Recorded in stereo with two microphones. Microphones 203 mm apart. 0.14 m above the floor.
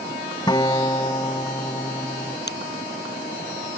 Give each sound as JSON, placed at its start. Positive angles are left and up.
{"t": 0.5, "sound": "a guitar", "side_deg": 20}
{"t": 2.5, "sound": "a finger snap", "side_deg": 55}